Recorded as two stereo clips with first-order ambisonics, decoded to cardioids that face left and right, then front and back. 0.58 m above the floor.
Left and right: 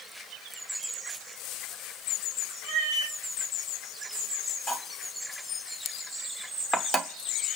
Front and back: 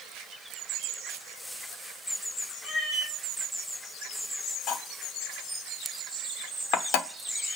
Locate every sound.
2.6 s a cat meowing: 115° left, 2.5 m
4.7 s cutlery clinking: 15° left, 0.9 m